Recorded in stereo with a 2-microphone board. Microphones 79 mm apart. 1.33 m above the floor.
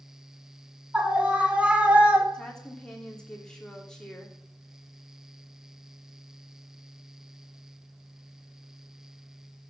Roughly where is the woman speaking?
Centre.